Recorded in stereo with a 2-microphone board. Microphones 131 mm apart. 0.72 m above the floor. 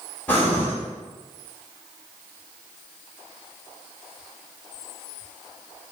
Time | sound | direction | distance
0.3 | breathing | 10° left (ahead or behind) | 1.0 m